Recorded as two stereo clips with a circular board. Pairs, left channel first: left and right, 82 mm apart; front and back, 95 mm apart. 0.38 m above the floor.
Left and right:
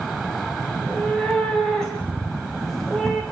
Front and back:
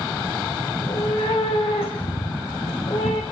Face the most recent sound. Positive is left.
turn(degrees=0)